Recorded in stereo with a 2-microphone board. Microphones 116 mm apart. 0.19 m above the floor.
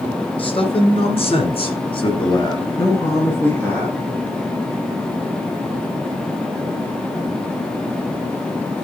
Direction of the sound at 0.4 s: 50° left (ahead or behind).